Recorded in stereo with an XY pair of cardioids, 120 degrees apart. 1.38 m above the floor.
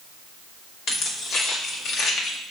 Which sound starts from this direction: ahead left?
Keys jangling, at 0.9 s.